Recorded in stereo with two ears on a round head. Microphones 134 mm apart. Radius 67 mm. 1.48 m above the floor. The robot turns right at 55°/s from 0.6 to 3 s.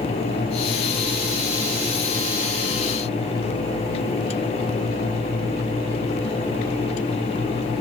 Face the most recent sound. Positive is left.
No sound to turn to.